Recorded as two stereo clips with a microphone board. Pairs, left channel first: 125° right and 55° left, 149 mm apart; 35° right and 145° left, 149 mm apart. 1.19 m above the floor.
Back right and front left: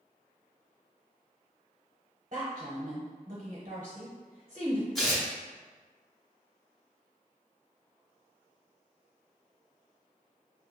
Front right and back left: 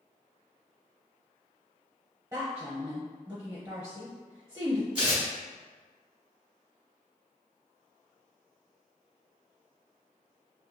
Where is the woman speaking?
85° left, 0.6 m.